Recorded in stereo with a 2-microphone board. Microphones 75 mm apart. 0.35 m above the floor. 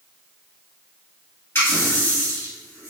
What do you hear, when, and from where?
1.6 s a running tap: 35° left (ahead or behind), 1.5 m